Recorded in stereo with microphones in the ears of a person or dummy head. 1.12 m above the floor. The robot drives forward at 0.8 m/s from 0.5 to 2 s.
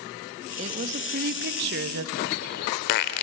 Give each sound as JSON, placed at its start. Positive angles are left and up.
{"t": 0.6, "sound": "a woman speaking", "side_deg": -40, "distance_m": 1.8}
{"t": 2.1, "sound": "a bird", "side_deg": 55, "distance_m": 1.2}